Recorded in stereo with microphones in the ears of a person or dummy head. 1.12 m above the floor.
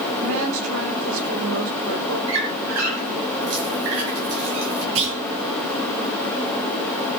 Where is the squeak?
75° right (ahead or behind), 5.5 m.